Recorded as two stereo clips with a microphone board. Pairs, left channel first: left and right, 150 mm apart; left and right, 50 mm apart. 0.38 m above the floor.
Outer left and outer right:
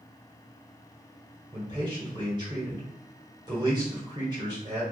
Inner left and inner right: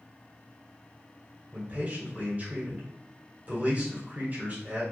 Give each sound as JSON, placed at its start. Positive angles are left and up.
{"t": 1.5, "sound": "a man speaking", "side_deg": -30, "distance_m": 1.5}